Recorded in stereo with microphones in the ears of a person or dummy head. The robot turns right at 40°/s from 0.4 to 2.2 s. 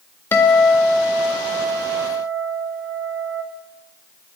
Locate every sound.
0.3 s a guitar: 170° left, 0.5 m; by 3.4 s 120° right, 0.5 m